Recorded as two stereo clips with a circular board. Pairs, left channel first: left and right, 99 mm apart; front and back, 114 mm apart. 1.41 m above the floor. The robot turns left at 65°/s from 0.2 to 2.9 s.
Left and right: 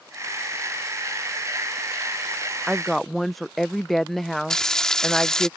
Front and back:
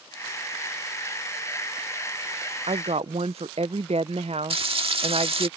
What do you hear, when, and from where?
2.7 s a woman speaking: 165° right; by 5.5 s straight behind
4.5 s frying: 175° left